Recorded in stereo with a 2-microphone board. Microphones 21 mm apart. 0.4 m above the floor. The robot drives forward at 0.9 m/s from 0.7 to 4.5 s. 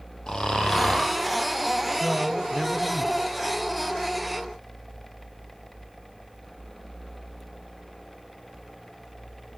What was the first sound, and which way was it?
Snoring, 40° left (ahead or behind).